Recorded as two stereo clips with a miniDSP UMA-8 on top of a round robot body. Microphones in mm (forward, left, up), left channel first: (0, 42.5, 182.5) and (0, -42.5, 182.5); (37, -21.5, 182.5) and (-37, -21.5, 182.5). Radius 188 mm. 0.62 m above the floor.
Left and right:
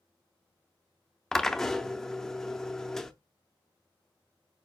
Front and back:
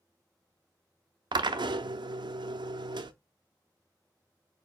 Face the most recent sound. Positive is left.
turn(degrees=175)